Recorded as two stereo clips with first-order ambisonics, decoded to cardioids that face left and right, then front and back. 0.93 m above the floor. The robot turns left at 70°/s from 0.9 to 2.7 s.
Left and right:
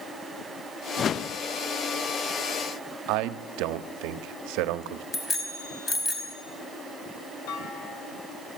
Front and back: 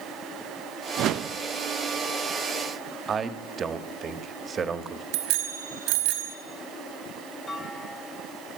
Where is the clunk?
75° left, 2.5 m.